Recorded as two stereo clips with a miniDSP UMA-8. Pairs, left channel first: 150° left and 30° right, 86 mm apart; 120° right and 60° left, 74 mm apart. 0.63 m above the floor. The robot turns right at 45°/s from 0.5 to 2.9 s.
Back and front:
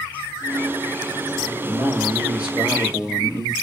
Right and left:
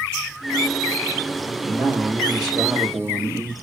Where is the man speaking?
10° left, 2.5 m; by 3.5 s 70° left, 2.5 m.